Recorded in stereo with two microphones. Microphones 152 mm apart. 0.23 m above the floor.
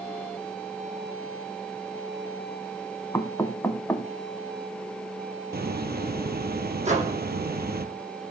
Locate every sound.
3.1 s knocking: 15° left (ahead or behind), 1.2 m
5.5 s a hiss: 80° right, 1.8 m
6.8 s a microwave: 45° right (ahead or behind), 8.5 m